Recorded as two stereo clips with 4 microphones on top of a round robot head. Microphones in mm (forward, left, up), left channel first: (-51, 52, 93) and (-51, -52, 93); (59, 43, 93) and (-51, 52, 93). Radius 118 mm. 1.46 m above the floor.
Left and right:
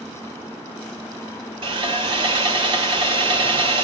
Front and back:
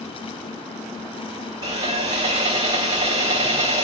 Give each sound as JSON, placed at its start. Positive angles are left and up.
{"t": 1.6, "sound": "sawing", "azimuth_deg": -120, "distance_m": 2.0}